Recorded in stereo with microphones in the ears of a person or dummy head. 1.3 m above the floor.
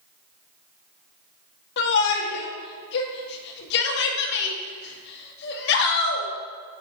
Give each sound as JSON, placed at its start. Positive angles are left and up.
{"t": 1.8, "sound": "a shout", "side_deg": 65, "distance_m": 1.8}